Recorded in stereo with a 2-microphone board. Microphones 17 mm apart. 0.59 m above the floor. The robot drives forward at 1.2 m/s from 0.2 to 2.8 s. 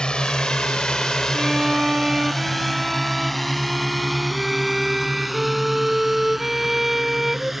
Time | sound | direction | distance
0.0 | a drone | 60° left (ahead or behind) | ?
1.3 | a violin | 25° right (ahead or behind) | ?